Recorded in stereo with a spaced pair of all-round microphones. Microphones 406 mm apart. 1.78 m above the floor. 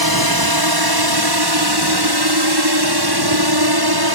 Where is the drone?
60° right (ahead or behind); by 4.2 s 65° right (ahead or behind).